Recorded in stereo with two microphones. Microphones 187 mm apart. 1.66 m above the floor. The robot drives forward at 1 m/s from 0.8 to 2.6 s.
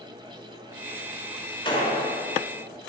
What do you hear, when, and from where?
1.6 s a gunshot: 30° left (ahead or behind), 3 m; by 2.0 s 25° left (ahead or behind), 3 m